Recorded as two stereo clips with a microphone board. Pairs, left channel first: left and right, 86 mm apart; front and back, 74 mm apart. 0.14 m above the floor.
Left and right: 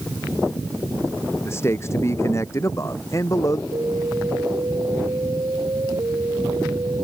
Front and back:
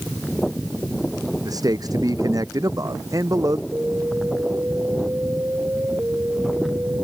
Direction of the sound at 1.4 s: 150° left.